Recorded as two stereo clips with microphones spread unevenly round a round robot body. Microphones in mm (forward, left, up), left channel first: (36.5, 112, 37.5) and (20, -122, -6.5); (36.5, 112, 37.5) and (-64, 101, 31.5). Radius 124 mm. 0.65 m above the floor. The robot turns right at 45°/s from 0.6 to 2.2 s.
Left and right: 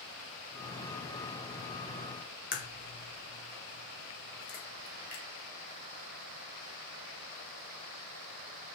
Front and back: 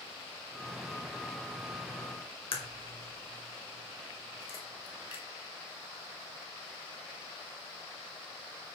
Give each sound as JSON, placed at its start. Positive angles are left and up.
{"t": 2.5, "sound": "a crack", "azimuth_deg": 30, "distance_m": 2.5}